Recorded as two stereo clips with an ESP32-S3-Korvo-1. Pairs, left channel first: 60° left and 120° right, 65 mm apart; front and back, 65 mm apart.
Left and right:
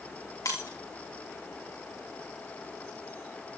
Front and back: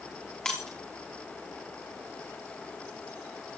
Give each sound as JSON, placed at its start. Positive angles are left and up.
{"t": 0.5, "sound": "breaking glass", "azimuth_deg": 85, "distance_m": 4.0}